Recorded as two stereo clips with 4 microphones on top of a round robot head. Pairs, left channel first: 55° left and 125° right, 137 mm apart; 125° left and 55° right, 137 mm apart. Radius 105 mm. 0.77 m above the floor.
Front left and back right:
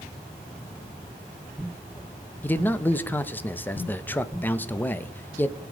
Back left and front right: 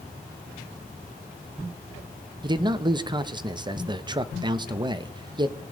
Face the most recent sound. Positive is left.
turn(degrees=-15)